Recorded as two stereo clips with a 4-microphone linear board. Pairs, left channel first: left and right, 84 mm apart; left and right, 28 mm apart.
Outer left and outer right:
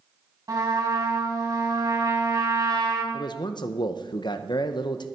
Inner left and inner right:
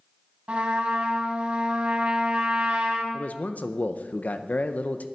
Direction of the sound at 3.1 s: 60° left (ahead or behind).